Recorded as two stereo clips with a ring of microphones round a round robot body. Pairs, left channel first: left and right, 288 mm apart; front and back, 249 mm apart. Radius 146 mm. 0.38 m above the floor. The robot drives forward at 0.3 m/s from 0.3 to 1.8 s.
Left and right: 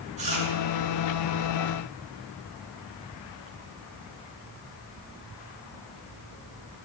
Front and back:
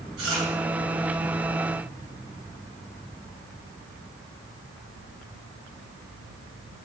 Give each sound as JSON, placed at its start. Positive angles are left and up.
{"t": 0.2, "sound": "chewing", "azimuth_deg": -155, "distance_m": 2.5}